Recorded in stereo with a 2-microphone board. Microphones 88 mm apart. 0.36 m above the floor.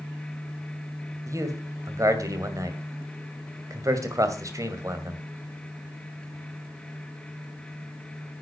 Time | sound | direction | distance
1.3 | a man speaking | 35° right (ahead or behind) | 2.5 m